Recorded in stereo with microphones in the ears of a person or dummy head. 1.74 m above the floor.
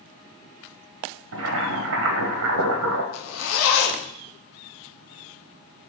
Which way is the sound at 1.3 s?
65° right (ahead or behind).